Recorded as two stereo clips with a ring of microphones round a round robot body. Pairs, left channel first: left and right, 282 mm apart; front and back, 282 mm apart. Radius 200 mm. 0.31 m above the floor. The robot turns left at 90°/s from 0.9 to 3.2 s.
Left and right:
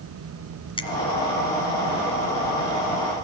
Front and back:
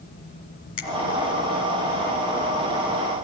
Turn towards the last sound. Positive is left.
turn(degrees=170)